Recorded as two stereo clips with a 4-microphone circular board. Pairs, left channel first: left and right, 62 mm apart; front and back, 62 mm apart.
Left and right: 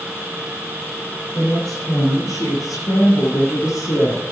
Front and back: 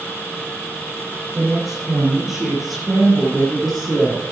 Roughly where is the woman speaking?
Left.